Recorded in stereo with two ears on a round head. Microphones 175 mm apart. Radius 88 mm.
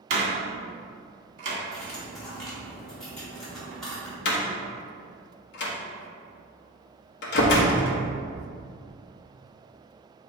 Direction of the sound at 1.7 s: 5° left (ahead or behind).